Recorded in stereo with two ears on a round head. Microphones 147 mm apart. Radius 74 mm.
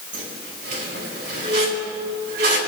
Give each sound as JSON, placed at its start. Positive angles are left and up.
{"t": 0.1, "sound": "a squeak", "side_deg": -75, "distance_m": 3.0}